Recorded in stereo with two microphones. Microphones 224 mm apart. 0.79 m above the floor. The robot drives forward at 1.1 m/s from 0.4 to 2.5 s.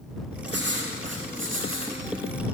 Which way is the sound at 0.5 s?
55° right (ahead or behind).